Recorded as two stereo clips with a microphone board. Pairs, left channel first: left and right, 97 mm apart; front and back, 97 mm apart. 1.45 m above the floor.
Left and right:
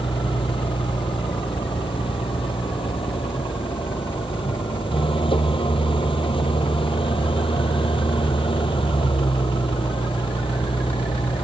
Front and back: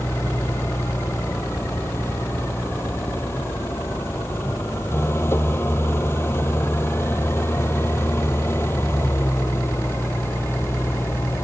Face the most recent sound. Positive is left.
turn(degrees=65)